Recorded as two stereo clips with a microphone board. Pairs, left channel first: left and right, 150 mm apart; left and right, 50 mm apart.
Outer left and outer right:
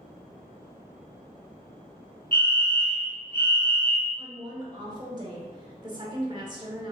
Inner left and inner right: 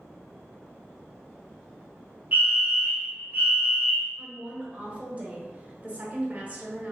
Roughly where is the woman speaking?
Right.